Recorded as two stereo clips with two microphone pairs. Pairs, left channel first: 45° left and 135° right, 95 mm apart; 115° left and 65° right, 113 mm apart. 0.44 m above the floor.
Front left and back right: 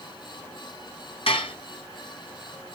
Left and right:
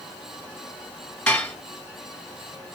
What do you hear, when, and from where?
1.3 s dishes clattering: 40° left, 2 m